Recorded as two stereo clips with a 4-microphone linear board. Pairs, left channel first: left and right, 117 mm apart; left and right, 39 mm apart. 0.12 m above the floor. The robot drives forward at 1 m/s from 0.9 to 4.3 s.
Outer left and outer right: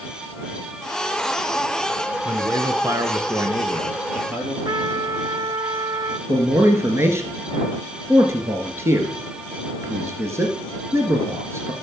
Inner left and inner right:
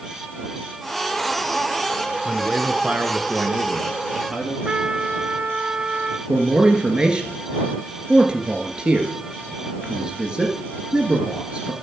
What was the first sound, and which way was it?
A man speaking, 25° right (ahead or behind).